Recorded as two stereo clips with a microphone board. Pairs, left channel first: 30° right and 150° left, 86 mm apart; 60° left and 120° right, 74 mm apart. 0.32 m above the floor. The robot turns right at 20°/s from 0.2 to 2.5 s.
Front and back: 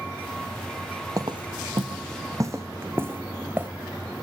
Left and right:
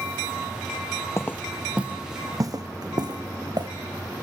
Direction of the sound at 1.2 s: 110° left.